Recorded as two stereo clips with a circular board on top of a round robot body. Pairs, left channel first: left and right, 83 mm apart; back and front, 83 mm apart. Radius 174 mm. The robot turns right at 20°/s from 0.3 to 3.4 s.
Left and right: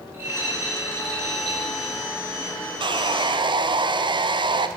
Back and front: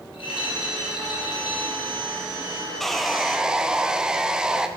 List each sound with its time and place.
0.1 s a rattle: 160° right, 1.6 m; by 2.0 s 125° right, 1.6 m
2.8 s sawing: 90° right, 0.5 m; by 4.7 s 80° right, 0.5 m